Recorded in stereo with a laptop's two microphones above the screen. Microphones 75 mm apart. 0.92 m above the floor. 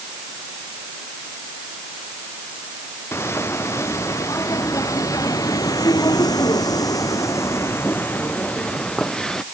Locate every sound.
3.1 s footsteps: 35° left (ahead or behind); by 9.4 s 10° left (ahead or behind)